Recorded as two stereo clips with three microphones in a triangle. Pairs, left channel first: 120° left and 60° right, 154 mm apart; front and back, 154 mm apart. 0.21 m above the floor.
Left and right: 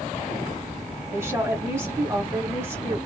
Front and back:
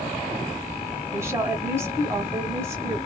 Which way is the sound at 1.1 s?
120° right.